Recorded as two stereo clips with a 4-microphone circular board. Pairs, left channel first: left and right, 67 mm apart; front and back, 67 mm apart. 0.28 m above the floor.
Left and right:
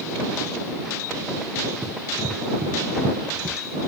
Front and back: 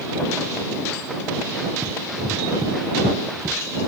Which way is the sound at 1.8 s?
145° right.